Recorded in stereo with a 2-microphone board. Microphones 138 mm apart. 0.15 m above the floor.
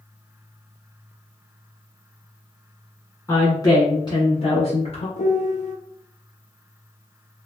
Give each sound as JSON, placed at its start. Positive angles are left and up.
{"t": 3.3, "sound": "a woman speaking", "side_deg": 20, "distance_m": 1.3}
{"t": 5.2, "sound": "a piano", "side_deg": 65, "distance_m": 0.5}